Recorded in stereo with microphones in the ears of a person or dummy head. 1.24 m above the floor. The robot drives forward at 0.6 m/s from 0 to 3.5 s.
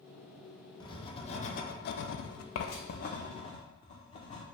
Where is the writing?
25° left (ahead or behind), 1.0 m; by 4.4 s 30° left (ahead or behind), 0.8 m.